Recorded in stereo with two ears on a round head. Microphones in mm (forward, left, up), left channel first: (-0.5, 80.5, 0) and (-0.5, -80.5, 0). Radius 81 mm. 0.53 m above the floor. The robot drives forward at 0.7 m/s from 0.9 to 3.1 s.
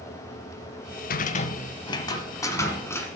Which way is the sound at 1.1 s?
50° left (ahead or behind).